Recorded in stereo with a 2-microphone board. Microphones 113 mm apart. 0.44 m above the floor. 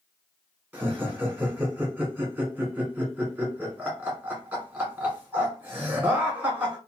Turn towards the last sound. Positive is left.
turn(degrees=-10)  # may be behind; listen again after turning